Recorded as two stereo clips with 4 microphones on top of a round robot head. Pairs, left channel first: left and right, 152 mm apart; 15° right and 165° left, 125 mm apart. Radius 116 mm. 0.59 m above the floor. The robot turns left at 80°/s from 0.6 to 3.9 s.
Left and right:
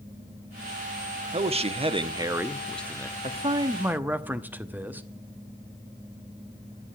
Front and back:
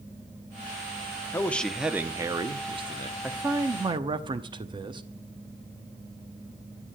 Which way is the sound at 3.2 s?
110° right.